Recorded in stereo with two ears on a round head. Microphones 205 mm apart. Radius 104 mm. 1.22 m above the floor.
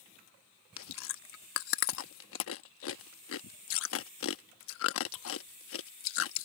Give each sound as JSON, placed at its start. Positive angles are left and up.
{"t": 0.8, "sound": "chewing", "side_deg": 65}